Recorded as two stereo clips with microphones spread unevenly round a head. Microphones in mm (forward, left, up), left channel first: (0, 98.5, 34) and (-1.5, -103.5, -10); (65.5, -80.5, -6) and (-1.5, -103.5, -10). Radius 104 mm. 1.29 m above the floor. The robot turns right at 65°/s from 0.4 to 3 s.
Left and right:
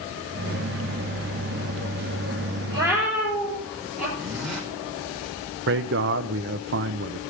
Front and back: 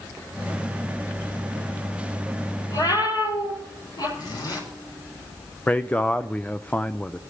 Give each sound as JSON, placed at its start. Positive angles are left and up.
{"t": 2.7, "sound": "a cat meowing", "azimuth_deg": -20, "distance_m": 6.5}
{"t": 4.2, "sound": "a zipper", "azimuth_deg": 0, "distance_m": 5.5}
{"t": 5.7, "sound": "a man speaking", "azimuth_deg": -55, "distance_m": 0.6}